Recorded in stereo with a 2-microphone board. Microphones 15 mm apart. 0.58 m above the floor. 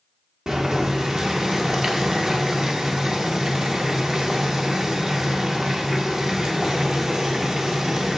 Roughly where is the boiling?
Right.